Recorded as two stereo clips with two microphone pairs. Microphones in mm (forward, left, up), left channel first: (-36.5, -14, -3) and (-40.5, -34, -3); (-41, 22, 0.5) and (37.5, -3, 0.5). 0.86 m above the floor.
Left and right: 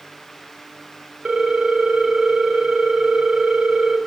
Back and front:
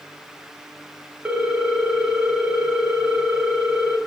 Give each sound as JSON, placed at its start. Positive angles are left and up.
{"t": 1.2, "sound": "a ringtone", "azimuth_deg": -90, "distance_m": 0.6}